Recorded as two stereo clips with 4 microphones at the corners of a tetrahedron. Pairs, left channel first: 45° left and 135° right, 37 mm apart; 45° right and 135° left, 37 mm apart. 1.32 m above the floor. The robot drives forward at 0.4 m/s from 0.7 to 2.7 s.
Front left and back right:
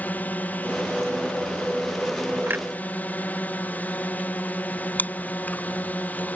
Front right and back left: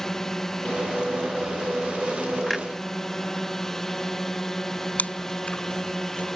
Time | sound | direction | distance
0.0 | a drone | 30° left | ?
2.5 | a clunk | 130° right | ?
5.0 | chewing | 5° left | ?